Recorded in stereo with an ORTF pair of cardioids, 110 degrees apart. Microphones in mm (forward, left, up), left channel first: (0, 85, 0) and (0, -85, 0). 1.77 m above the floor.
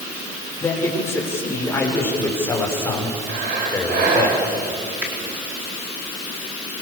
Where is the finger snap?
10° right, 4.5 m.